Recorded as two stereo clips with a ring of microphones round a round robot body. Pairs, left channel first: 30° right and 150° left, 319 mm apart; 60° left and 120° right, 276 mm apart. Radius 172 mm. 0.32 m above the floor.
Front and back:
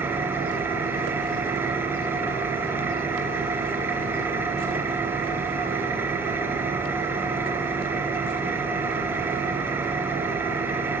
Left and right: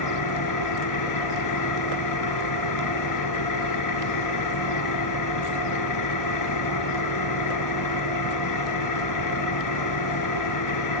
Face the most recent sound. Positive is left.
turn(degrees=65)